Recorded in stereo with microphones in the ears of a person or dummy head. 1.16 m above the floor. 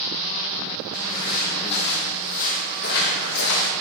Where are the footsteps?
20° left (ahead or behind), 3.5 m; by 3.7 s 65° left (ahead or behind), 3 m.